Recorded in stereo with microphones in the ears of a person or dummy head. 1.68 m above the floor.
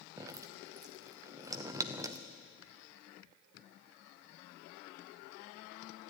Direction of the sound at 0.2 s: 25° right (ahead or behind).